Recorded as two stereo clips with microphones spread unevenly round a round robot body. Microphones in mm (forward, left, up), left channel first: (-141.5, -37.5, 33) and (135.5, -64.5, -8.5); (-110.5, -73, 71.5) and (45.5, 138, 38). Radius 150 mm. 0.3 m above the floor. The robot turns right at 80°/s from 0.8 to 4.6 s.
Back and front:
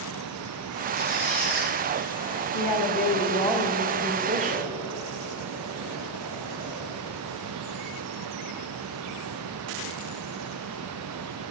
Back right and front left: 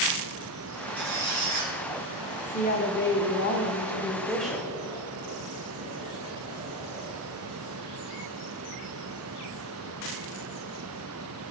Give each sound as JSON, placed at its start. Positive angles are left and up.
{"t": 1.0, "sound": "a squeak", "azimuth_deg": -5, "distance_m": 2.5}
{"t": 2.5, "sound": "a woman speaking", "azimuth_deg": 180, "distance_m": 1.1}